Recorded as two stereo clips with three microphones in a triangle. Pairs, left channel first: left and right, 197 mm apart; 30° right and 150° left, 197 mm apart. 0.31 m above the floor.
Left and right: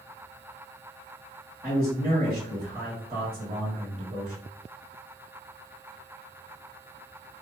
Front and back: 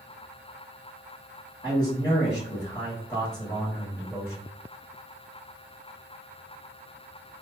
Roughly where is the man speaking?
Right.